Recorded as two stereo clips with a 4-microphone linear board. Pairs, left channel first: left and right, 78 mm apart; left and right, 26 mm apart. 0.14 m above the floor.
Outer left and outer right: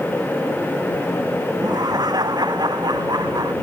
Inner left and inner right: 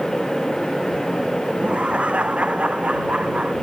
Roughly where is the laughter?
Right.